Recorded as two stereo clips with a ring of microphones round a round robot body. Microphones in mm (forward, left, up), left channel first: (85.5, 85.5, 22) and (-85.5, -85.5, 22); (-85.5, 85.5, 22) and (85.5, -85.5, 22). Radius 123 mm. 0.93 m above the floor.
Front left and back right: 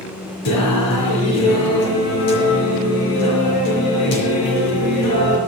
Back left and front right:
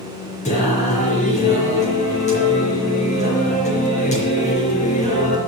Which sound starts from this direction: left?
Singing, at 0.5 s.